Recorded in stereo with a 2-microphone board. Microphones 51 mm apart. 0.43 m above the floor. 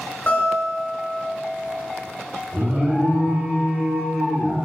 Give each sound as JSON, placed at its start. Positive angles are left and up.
{"t": 0.3, "sound": "a guitar", "side_deg": 30, "distance_m": 1.3}
{"t": 2.5, "sound": "an alarm", "side_deg": -25, "distance_m": 0.9}